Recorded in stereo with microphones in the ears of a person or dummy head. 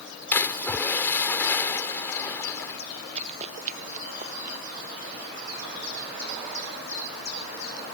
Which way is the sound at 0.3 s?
15° left (ahead or behind).